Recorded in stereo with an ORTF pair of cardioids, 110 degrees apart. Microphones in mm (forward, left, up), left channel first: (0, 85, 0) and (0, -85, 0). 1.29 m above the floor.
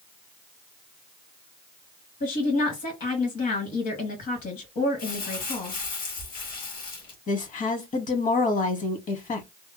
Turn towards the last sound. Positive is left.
turn(degrees=50)